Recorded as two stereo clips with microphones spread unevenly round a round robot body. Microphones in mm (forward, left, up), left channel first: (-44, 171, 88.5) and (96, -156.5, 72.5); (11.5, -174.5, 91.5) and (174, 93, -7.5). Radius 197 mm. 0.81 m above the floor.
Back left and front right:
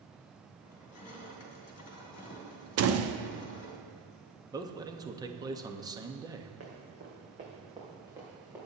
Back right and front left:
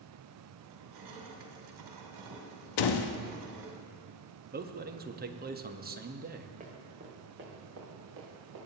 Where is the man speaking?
10° left, 1.1 m.